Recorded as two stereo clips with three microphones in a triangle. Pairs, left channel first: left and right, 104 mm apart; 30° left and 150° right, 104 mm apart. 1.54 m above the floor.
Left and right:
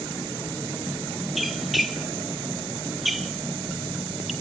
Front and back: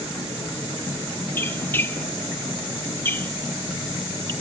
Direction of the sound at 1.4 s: 5° right.